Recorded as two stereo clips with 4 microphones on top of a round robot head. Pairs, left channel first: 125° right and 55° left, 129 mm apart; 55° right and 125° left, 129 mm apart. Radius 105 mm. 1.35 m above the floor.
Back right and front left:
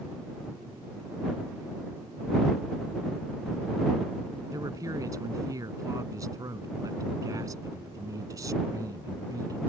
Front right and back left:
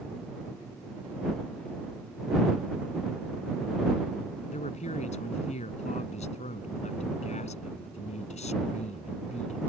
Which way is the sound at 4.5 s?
15° right.